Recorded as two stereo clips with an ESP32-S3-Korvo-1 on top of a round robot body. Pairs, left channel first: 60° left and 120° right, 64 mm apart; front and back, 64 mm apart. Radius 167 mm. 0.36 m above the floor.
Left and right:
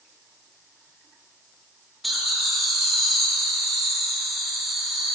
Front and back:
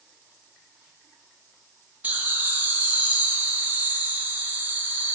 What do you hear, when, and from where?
2.0 s laughter: 150° left, 1.5 m